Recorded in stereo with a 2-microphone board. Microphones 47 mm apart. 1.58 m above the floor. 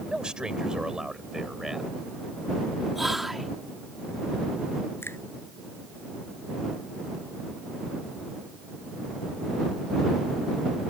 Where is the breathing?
No breathing in this recording.